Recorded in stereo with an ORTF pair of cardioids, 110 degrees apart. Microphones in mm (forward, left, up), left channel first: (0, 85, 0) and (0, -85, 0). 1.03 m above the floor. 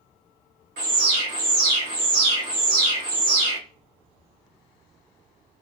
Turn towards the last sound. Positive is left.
turn(degrees=-65)